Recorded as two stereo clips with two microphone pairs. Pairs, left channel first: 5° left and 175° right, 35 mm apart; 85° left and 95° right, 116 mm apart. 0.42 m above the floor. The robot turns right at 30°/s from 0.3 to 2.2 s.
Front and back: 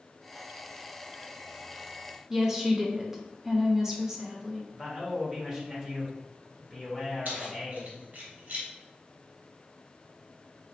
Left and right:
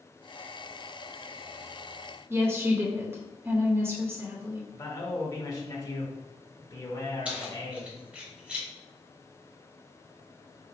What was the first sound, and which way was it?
A woman speaking, 120° right.